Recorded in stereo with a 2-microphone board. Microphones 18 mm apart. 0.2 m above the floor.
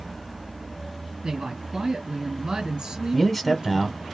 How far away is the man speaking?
About 1.0 m.